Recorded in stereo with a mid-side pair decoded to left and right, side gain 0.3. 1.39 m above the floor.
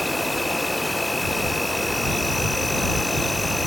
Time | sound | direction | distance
0.0 | an insect | 10° left | ?